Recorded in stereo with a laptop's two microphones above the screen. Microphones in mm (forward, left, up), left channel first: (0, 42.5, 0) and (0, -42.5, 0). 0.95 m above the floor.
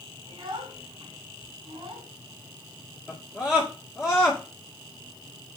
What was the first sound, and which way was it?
A child speaking, 80° right.